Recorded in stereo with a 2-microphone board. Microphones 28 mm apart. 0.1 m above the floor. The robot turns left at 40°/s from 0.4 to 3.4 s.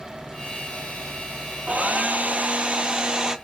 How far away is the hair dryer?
About 1.0 m.